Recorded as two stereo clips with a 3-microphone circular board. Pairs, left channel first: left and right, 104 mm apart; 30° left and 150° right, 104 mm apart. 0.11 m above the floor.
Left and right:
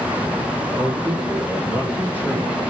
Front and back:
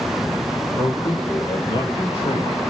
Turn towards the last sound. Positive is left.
turn(degrees=-15)